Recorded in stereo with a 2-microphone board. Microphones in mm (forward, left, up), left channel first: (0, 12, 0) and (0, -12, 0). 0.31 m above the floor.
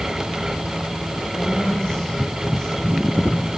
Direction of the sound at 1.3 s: 65° left (ahead or behind).